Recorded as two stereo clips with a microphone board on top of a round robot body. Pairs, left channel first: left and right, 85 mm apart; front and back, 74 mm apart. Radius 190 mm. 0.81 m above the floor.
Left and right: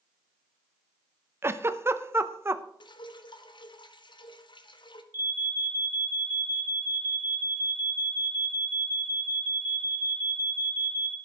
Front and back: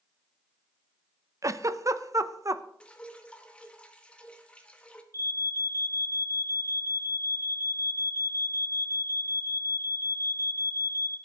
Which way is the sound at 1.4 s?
145° right.